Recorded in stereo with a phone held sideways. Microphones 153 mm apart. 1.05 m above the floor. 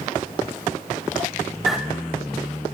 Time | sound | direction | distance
1.7 | a bird | centre (ahead or behind) | 0.9 m